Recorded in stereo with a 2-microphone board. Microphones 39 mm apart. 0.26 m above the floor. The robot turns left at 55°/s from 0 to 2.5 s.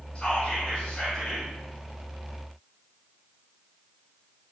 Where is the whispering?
25° left (ahead or behind), 1.4 m; by 1.5 s 10° left (ahead or behind), 1.4 m.